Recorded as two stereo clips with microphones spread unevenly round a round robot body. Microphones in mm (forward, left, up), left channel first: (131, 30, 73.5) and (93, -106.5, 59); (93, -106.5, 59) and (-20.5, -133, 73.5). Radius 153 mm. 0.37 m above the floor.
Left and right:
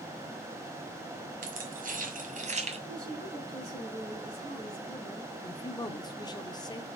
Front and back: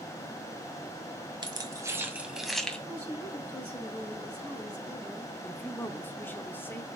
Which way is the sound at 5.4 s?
40° left.